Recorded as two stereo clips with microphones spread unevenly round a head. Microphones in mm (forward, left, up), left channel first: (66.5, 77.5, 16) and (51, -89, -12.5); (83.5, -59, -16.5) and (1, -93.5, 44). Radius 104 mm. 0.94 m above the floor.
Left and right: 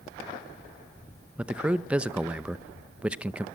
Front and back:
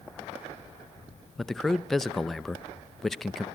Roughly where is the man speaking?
Ahead right.